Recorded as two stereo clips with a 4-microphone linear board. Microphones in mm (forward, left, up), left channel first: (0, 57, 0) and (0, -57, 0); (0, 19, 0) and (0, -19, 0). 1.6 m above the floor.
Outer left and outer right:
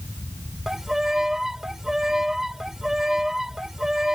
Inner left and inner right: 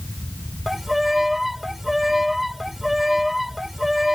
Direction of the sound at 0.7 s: 5° right (ahead or behind).